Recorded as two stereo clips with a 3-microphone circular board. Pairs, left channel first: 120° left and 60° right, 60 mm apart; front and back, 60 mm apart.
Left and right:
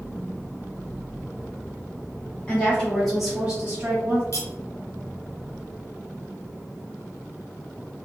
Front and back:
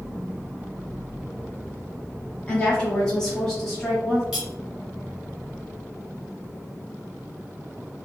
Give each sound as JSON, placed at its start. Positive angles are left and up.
{"t": 2.5, "sound": "a woman speaking", "azimuth_deg": 60, "distance_m": 1.4}
{"t": 4.3, "sound": "cutlery clinking", "azimuth_deg": 100, "distance_m": 1.0}